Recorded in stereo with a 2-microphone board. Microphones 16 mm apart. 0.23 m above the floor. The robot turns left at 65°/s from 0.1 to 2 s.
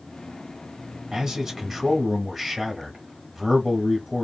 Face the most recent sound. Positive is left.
turn(degrees=180)